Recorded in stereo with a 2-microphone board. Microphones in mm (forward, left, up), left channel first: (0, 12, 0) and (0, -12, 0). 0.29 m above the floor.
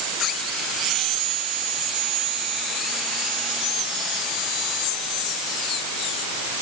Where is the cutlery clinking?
No cutlery clinking in this recording.